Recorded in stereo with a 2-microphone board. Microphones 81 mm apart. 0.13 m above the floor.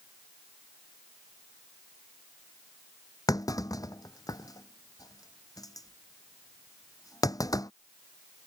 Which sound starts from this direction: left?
A clunk, at 3.3 s.